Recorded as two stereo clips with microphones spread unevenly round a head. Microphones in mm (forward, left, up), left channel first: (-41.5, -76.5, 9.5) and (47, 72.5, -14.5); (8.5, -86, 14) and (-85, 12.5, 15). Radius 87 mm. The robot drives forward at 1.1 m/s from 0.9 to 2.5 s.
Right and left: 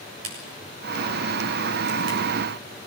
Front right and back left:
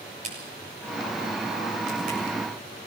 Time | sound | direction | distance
0.2 | a crack | 75° left | 7 m